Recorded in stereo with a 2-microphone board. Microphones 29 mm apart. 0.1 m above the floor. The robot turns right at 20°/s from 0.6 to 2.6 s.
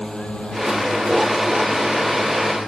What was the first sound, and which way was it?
A drone, 30° left (ahead or behind).